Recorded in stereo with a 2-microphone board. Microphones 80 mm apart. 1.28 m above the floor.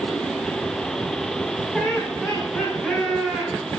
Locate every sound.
1.7 s laughter: 5° right (ahead or behind), 6.5 m; by 3.5 s 10° right (ahead or behind), 7.5 m